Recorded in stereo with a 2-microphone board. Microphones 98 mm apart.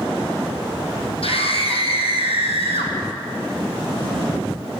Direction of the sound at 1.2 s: 70° left (ahead or behind).